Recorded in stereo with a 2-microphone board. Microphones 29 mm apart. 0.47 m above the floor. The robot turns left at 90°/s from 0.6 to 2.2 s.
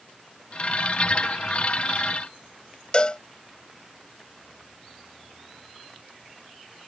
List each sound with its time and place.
2.9 s a cowbell: 30° left (ahead or behind)